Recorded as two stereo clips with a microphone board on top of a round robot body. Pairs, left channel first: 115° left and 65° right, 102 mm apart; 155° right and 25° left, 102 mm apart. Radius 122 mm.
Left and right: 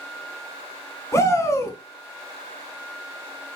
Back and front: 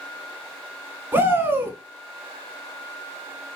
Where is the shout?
75° left, 1.3 m.